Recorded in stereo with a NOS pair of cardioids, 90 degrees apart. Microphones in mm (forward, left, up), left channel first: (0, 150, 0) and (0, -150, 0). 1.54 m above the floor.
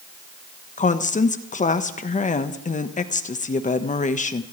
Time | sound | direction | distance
0.8 | a woman speaking | 25° left | 1.4 m